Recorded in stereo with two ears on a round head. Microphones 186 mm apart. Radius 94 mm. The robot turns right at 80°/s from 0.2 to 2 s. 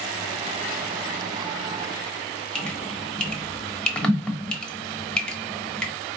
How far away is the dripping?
About 0.9 m.